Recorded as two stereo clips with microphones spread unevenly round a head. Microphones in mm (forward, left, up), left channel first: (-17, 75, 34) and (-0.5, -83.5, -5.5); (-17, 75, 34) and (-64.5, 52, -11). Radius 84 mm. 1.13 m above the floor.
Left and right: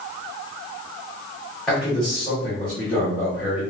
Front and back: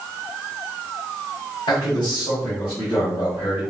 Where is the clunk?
No clunk in this recording.